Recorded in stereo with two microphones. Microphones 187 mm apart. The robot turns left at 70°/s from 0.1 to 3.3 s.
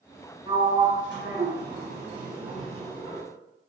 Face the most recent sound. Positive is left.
turn(degrees=130)